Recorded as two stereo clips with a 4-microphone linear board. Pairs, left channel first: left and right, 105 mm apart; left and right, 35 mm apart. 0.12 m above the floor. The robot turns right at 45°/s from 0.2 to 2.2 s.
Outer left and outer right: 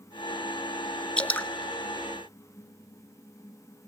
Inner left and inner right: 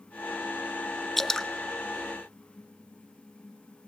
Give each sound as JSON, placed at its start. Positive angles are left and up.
{"t": 1.2, "sound": "dripping", "side_deg": 10, "distance_m": 0.7}